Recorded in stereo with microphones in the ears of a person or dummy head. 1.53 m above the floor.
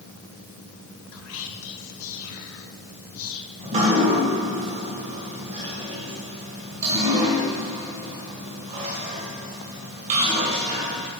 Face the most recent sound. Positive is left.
turn(degrees=-35)  # may be behind; listen again after turning